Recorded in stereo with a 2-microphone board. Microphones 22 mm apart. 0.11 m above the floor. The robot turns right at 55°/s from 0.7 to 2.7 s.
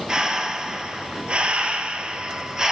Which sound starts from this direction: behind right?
Breathing, at 0.1 s.